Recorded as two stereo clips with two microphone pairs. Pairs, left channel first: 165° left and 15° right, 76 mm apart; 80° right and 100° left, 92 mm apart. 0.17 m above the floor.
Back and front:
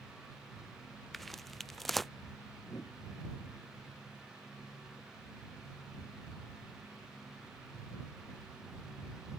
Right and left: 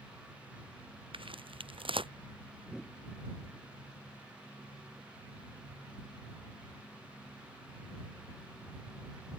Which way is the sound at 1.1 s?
80° left.